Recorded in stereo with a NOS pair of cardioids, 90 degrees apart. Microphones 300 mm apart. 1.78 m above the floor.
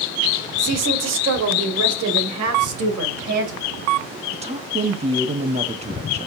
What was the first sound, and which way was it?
A woman speaking, 55° right.